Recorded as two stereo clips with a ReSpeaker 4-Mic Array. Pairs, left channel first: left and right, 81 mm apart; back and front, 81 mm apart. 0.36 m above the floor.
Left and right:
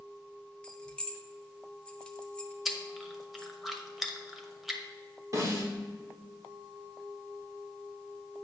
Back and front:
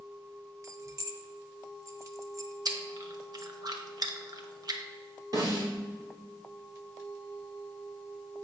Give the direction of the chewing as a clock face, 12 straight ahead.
12 o'clock.